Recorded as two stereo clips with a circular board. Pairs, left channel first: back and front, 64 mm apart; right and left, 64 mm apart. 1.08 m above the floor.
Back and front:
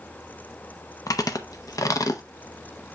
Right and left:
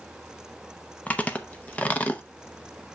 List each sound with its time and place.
1.1 s chewing: 155° right, 0.8 m